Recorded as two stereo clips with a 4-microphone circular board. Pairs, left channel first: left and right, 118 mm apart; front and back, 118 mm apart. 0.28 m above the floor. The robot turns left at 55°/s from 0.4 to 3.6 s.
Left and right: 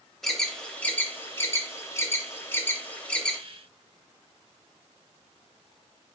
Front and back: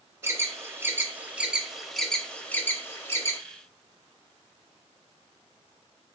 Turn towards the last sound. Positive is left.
turn(degrees=0)